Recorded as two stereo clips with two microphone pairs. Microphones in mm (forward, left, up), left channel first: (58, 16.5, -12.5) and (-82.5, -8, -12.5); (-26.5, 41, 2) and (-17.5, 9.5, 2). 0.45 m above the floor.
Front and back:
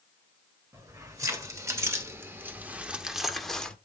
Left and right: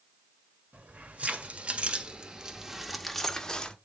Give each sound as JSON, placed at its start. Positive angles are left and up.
{"t": 0.7, "sound": "keys jangling", "azimuth_deg": -105, "distance_m": 1.6}